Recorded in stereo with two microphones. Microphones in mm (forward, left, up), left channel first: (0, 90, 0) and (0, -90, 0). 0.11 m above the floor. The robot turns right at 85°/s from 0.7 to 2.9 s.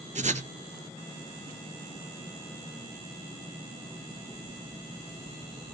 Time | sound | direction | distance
0.1 | writing | 45° right (ahead or behind) | 0.6 m